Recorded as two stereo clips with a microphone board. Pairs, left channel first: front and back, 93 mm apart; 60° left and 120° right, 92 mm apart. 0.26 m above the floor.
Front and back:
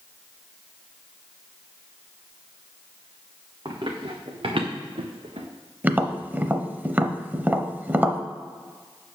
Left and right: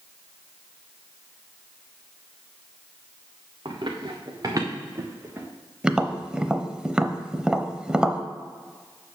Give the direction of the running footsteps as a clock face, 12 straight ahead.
5 o'clock.